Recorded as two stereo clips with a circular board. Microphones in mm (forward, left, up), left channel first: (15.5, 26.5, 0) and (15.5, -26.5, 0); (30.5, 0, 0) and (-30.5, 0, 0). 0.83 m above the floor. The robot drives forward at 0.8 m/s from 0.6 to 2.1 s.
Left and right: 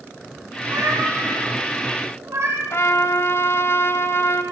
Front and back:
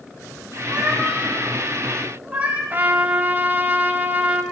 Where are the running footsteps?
I don't hear running footsteps.